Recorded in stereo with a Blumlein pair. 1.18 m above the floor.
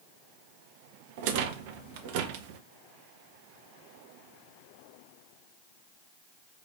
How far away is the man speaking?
I don't hear a man speaking.